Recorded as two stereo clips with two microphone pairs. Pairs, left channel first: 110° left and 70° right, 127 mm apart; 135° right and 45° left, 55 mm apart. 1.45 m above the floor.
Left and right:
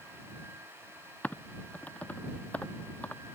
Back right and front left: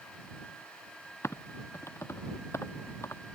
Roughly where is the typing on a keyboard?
Behind.